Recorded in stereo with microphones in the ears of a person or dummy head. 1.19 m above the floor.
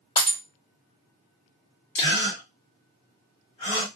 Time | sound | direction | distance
0.2 | breaking glass | 25° left (ahead or behind) | 1.8 m
1.9 | a gasp | 35° left (ahead or behind) | 1.8 m